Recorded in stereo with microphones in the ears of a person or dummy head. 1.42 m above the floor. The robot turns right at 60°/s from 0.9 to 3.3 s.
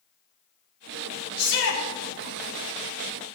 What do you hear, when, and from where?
1.4 s a shout: 50° left (ahead or behind), 4 m; by 1.8 s 75° left (ahead or behind), 4 m